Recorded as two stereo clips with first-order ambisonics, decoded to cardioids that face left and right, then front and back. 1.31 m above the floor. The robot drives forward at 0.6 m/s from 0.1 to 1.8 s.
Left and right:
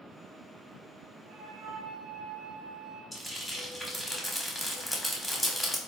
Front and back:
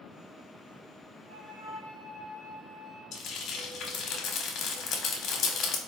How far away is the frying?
About 0.5 m.